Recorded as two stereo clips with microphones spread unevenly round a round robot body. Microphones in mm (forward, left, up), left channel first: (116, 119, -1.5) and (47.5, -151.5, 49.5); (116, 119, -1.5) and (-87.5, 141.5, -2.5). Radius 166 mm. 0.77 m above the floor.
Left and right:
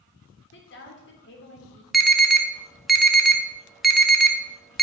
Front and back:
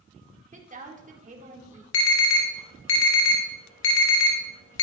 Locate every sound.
0.5 s a woman speaking: 125° left, 2.5 m
1.9 s an alarm: 10° right, 2 m